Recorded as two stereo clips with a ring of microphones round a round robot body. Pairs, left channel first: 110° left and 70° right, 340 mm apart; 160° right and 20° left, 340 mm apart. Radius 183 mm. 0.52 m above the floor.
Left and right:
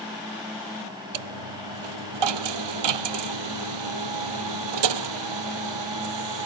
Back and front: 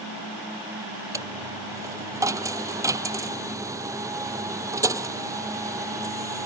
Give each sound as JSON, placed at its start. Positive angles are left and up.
{"t": 1.1, "sound": "a dropped coin", "azimuth_deg": -60}